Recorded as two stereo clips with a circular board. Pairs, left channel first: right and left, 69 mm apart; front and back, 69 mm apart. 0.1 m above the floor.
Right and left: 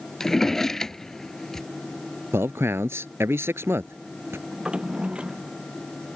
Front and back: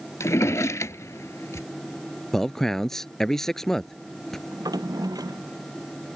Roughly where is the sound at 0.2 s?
Ahead.